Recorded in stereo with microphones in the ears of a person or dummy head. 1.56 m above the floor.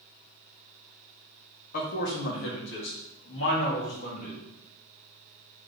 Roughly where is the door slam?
I don't hear a door slam.